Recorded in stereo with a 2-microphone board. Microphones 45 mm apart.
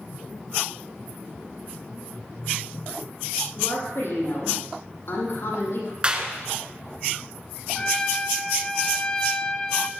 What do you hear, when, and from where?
3.6 s a woman speaking: 70° left (ahead or behind), 7 m
6.0 s a clap: 25° right (ahead or behind), 1.8 m
7.8 s a trumpet: 20° left (ahead or behind), 1.0 m